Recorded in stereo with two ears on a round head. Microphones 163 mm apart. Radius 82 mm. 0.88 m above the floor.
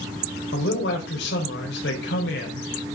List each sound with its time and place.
0.5 s a man speaking: 70° left (ahead or behind), 4.5 m